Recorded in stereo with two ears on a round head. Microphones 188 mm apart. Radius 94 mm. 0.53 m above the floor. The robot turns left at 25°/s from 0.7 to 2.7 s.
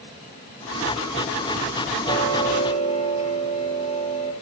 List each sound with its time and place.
2.0 s ticking: 15° left (ahead or behind), 9.5 m; by 4.3 s 30° left (ahead or behind), 9.5 m